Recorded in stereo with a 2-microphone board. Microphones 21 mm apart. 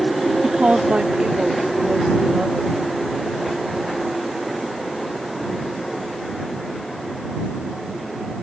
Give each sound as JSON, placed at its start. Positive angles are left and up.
{"t": 0.4, "sound": "a woman speaking", "side_deg": -80}